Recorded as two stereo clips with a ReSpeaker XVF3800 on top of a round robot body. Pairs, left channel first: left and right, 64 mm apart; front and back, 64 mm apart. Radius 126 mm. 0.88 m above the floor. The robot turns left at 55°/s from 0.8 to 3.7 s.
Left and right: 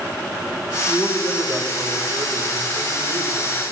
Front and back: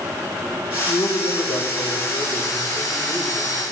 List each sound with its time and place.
0.9 s a man speaking: 30° left, 3.5 m; by 3.6 s 120° right, 3.5 m